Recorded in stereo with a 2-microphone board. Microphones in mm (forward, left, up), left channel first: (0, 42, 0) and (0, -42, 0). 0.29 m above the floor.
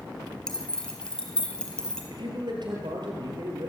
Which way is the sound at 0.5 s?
10° left (ahead or behind).